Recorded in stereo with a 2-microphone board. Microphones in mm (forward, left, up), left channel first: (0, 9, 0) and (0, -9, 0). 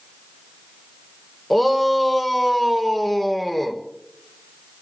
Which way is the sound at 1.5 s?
5° left (ahead or behind).